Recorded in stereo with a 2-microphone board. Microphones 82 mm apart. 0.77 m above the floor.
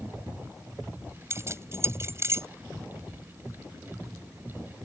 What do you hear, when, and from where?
1.3 s keys jangling: 35° right (ahead or behind)